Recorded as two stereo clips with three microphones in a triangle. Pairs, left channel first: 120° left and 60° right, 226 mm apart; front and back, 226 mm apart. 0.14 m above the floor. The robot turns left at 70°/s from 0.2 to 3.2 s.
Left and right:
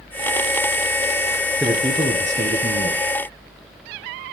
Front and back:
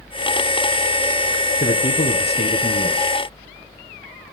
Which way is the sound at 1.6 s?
30° left.